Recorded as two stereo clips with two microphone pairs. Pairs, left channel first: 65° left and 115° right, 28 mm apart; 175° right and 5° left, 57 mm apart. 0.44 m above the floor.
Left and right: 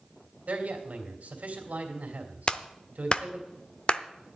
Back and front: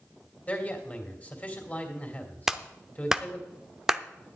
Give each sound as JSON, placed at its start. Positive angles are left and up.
{"t": 0.5, "sound": "a man speaking", "azimuth_deg": -120, "distance_m": 2.5}
{"t": 2.5, "sound": "a clap", "azimuth_deg": 75, "distance_m": 0.7}